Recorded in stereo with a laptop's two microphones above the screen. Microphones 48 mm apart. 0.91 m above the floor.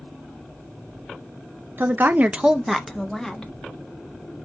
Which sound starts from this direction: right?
A woman speaking, at 1.8 s.